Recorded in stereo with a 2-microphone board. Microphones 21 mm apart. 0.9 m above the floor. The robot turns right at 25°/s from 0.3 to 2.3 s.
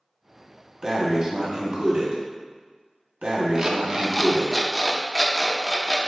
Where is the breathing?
145° right, 1.0 m; by 4.5 s 110° right, 1.0 m.